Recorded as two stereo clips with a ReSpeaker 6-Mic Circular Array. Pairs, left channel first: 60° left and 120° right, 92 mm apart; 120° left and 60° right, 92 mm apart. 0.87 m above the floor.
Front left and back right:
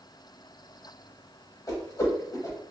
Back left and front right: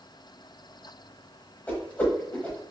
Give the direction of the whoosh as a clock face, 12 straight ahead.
10 o'clock.